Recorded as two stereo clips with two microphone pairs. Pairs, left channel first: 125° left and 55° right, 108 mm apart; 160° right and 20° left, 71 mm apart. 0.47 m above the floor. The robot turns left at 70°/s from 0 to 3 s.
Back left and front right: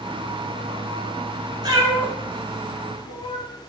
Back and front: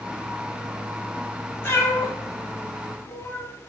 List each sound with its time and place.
1.6 s a cat meowing: 100° right, 0.9 m; by 3.5 s 160° left, 0.9 m